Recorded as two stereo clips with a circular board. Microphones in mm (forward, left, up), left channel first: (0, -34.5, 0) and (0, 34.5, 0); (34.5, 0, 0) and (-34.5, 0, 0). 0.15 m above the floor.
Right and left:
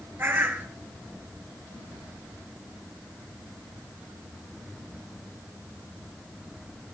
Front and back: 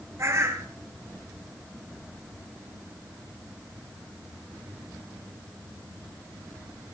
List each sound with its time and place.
0.2 s a bird: 145° left, 1.7 m